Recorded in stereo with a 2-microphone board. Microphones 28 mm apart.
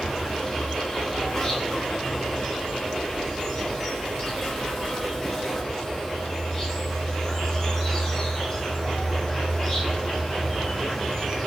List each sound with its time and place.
0.0 s an insect: 15° left (ahead or behind), 5 m